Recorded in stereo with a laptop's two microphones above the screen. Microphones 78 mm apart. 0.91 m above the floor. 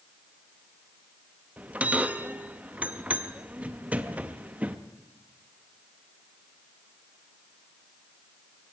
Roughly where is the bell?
Centre.